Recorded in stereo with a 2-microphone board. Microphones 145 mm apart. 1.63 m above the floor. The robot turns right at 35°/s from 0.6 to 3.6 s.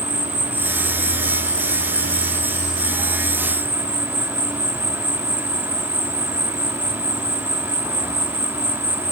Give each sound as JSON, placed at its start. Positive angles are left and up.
{"t": 0.0, "sound": "an insect", "azimuth_deg": -125}